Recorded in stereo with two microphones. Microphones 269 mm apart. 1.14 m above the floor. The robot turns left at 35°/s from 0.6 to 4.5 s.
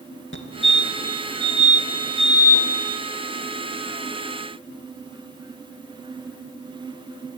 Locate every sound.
0.3 s a fire alarm: 45° left (ahead or behind), 2 m; by 2.7 s 15° right (ahead or behind), 2 m